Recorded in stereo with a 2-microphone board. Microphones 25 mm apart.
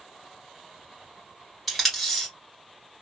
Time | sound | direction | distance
1.7 | tape being pulled | 5° right (ahead or behind) | 2 m